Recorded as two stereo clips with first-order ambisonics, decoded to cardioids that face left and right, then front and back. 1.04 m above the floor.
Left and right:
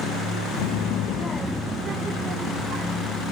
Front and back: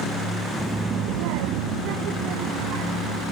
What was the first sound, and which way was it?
A child speaking, 95° left.